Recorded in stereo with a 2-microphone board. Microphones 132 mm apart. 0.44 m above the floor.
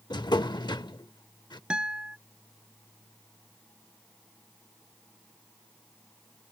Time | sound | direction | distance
0.1 | a drawer | 35° left (ahead or behind) | ?
1.7 | a guitar | 5° right (ahead or behind) | ?